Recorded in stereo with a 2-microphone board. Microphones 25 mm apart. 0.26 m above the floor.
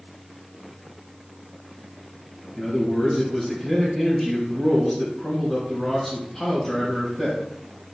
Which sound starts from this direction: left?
A man speaking, at 2.6 s.